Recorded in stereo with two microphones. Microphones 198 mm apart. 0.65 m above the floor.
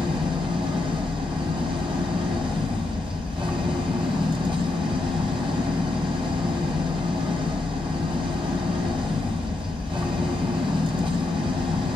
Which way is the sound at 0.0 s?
25° right (ahead or behind).